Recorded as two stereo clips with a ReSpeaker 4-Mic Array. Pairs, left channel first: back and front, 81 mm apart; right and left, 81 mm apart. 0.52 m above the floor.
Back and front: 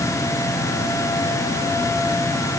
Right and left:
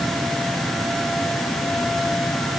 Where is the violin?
I don't hear a violin.